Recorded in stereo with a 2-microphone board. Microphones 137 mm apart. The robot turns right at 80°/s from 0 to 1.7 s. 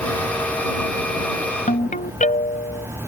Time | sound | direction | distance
1.7 | a ringtone | 70° left (ahead or behind) | ?